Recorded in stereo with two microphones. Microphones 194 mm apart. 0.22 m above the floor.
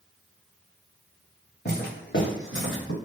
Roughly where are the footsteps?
Left.